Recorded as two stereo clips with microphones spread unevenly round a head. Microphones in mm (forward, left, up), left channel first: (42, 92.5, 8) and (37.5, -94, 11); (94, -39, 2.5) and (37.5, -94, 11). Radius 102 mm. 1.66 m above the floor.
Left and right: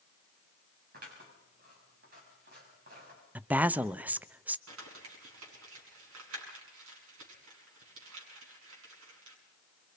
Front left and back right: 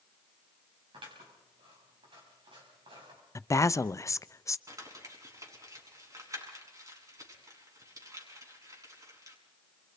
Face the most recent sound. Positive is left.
turn(degrees=-90)